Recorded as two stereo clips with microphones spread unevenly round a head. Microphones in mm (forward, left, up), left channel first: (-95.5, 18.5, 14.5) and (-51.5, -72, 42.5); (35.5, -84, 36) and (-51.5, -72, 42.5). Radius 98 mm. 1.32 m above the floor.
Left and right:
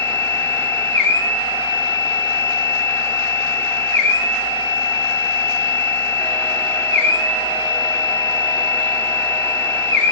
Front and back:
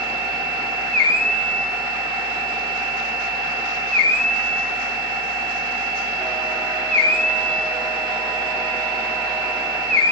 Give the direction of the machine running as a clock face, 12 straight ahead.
6 o'clock.